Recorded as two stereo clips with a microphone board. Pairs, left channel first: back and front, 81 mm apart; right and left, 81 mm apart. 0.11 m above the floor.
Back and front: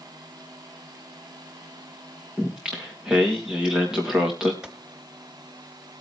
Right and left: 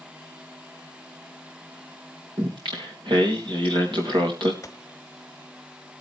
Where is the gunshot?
75° right, 1.2 m.